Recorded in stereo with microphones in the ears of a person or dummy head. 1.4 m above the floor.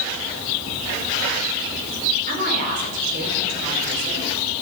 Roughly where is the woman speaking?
Right.